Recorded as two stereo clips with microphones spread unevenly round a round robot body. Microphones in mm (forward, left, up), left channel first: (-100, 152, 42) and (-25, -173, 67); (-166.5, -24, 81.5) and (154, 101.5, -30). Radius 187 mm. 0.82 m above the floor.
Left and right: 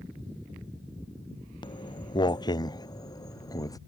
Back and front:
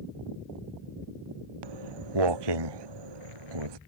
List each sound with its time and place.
1.6 s footsteps: 25° left; by 3.8 s 20° left